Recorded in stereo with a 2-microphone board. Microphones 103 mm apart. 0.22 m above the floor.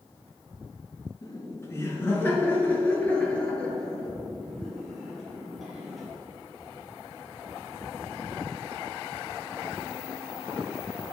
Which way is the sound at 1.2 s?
30° left (ahead or behind).